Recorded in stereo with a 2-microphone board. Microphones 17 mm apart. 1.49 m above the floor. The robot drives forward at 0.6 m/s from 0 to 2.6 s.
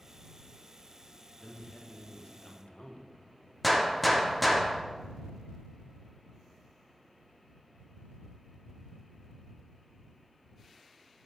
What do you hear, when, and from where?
1.4 s a man speaking: 45° left (ahead or behind), 1.5 m; by 3.1 s 70° left (ahead or behind), 1.1 m
3.6 s a gunshot: 5° left (ahead or behind), 0.8 m